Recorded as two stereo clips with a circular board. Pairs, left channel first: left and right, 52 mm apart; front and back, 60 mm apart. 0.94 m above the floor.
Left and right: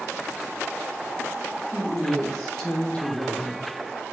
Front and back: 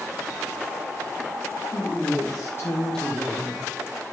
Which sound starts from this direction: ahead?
A woman speaking, at 1.7 s.